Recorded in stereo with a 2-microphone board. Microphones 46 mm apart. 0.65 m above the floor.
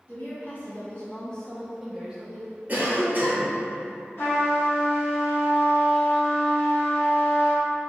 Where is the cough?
40° right (ahead or behind), 1.0 m.